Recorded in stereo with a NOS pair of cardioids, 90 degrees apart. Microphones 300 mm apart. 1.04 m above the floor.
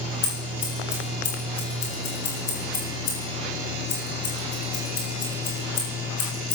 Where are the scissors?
55° left, 7.5 m.